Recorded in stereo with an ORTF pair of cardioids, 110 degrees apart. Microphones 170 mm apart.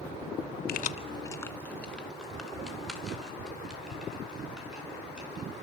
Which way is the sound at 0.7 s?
65° left.